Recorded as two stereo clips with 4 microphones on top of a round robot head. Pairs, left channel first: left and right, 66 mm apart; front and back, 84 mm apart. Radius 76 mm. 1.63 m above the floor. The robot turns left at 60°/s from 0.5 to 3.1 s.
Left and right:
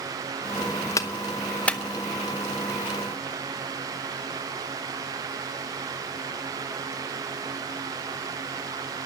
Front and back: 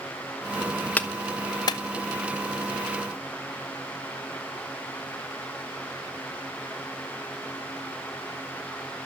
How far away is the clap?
About 0.8 m.